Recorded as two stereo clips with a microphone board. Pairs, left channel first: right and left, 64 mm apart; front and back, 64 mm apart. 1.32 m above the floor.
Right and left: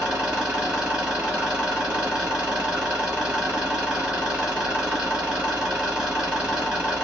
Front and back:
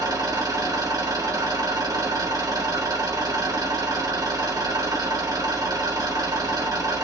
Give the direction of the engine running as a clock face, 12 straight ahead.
6 o'clock.